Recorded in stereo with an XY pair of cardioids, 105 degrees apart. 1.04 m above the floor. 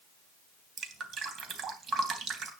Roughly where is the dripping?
Ahead right.